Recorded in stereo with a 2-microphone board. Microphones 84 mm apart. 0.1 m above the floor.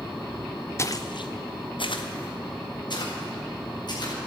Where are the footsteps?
30° left (ahead or behind), 0.9 m; by 4.1 s 55° left (ahead or behind), 4.5 m.